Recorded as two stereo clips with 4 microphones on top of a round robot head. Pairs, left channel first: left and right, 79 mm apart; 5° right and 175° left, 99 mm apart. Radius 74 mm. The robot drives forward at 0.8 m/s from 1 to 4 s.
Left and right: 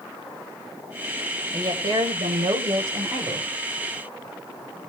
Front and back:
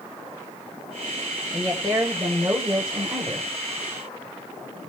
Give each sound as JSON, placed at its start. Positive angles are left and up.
{"t": 1.5, "sound": "a woman speaking", "azimuth_deg": -75, "distance_m": 2.5}